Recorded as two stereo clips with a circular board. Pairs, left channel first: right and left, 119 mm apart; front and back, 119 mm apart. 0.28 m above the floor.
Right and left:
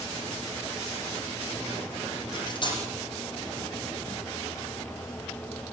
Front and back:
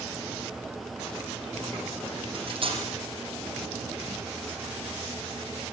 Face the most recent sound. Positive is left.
turn(degrees=-140)